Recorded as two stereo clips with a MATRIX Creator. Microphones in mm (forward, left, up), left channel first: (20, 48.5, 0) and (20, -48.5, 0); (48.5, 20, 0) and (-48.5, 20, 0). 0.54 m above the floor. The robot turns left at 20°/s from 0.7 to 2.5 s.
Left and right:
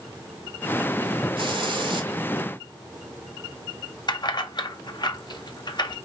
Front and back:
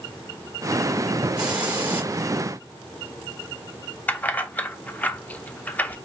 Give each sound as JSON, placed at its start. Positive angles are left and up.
{"t": 1.4, "sound": "a hiss", "azimuth_deg": -100, "distance_m": 1.6}
{"t": 4.1, "sound": "keys jangling", "azimuth_deg": 70, "distance_m": 0.5}